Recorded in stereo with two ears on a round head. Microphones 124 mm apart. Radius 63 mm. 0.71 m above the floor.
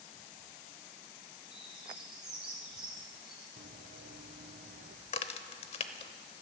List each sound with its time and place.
1.5 s a bird: 5° right (ahead or behind), 7.5 m
3.6 s running footsteps: 65° right (ahead or behind), 1.7 m; by 5.0 s 70° right (ahead or behind), 2.5 m
5.1 s a crack: 45° left (ahead or behind), 0.9 m